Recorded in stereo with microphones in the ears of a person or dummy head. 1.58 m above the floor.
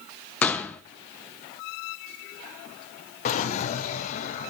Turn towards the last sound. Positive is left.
turn(degrees=45)  # may be behind; listen again after turning